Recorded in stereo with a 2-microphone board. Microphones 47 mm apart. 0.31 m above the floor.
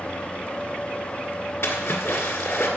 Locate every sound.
1.6 s a splash: 70° left (ahead or behind), 1.9 m